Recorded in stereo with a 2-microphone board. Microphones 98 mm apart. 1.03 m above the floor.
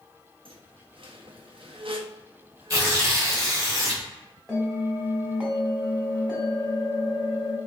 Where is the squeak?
65° right (ahead or behind), 0.5 m.